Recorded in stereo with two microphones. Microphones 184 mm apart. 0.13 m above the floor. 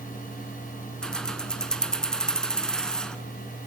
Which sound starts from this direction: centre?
Keys jangling, at 1.0 s.